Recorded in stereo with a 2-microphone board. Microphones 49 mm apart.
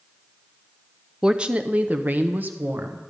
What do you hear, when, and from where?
1.2 s a woman speaking: 15° right (ahead or behind), 0.6 m; by 3.0 s 45° right (ahead or behind), 1.4 m